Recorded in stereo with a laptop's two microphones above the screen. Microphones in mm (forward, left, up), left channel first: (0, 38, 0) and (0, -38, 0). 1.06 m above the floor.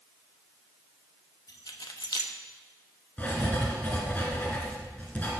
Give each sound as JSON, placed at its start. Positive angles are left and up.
{"t": 1.5, "sound": "keys jangling", "side_deg": 70, "distance_m": 1.1}
{"t": 3.2, "sound": "writing", "side_deg": 20, "distance_m": 2.5}